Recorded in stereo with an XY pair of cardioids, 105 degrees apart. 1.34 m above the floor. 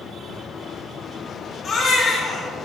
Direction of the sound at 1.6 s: 40° left.